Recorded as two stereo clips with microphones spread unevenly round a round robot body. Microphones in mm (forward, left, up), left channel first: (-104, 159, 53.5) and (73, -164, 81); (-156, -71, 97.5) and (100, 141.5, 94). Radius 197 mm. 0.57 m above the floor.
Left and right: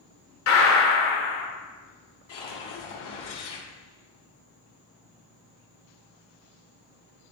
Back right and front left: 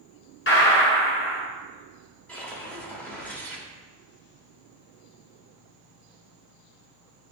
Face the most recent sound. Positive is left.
turn(degrees=135)